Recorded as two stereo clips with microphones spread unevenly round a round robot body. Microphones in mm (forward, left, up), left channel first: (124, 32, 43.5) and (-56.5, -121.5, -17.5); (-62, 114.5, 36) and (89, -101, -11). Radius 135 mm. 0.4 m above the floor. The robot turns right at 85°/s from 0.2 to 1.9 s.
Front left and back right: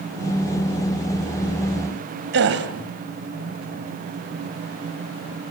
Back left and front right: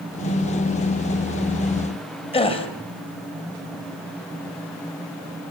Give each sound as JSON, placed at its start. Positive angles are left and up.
{"t": 2.3, "sound": "a gasp", "azimuth_deg": -160, "distance_m": 2.5}